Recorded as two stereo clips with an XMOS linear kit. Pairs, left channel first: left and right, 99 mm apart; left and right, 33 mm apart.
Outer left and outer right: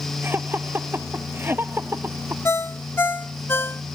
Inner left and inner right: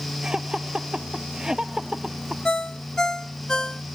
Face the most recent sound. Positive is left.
turn(degrees=25)  # may be behind; listen again after turning